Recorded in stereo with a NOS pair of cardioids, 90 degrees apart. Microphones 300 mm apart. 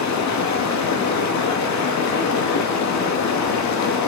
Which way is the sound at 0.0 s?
70° left.